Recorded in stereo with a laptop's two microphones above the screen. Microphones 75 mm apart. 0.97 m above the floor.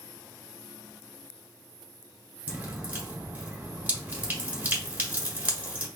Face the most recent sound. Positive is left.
turn(degrees=-20)  # may be behind; listen again after turning